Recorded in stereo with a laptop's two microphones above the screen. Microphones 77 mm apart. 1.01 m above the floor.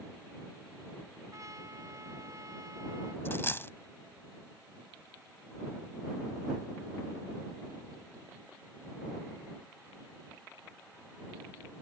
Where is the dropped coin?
30° left (ahead or behind).